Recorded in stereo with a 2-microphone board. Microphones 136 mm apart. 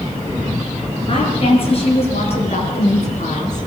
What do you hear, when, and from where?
1.1 s a woman speaking: 45° left (ahead or behind), 7.5 m; by 3.6 s 60° left (ahead or behind), 6.5 m